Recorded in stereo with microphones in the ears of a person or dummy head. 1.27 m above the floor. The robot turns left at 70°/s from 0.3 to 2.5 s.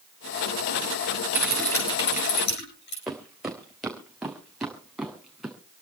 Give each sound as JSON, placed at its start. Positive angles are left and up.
{"t": 1.3, "sound": "typing on a keyboard", "azimuth_deg": -170, "distance_m": 8.5}
{"t": 3.1, "sound": "footsteps", "side_deg": -5, "distance_m": 3.5}